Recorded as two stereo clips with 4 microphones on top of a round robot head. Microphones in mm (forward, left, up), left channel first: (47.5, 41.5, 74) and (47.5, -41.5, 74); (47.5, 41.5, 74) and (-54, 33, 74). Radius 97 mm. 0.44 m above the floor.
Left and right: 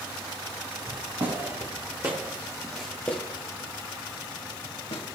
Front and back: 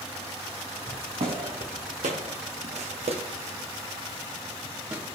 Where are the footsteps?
135° right, 2.5 m; by 5.0 s 115° left, 3 m.